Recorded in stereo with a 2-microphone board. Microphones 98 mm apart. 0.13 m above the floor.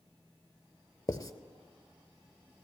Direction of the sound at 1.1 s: 40° left (ahead or behind).